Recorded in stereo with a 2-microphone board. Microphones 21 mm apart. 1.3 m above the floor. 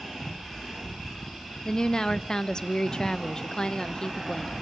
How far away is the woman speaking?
About 0.7 m.